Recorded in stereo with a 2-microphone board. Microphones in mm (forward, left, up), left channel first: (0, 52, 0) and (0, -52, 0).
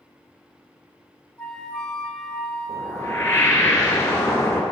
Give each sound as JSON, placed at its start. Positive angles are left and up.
{"t": 1.4, "sound": "a flute", "side_deg": 10, "distance_m": 1.5}
{"t": 2.7, "sound": "a whoosh", "side_deg": 25, "distance_m": 1.7}